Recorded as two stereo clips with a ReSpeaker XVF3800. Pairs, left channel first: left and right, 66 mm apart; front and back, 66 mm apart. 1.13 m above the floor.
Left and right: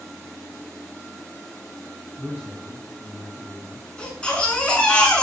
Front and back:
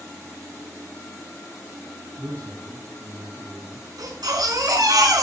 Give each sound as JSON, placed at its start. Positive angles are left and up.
{"t": 2.2, "sound": "a man speaking", "azimuth_deg": -160, "distance_m": 7.0}
{"t": 4.0, "sound": "a baby crying", "azimuth_deg": 165, "distance_m": 7.0}